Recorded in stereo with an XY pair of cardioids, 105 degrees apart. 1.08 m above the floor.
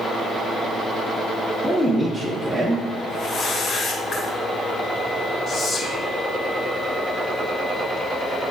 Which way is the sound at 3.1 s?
45° left.